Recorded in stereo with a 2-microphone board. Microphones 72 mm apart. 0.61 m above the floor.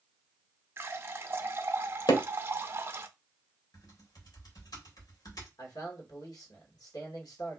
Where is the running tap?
35° right (ahead or behind), 0.5 m.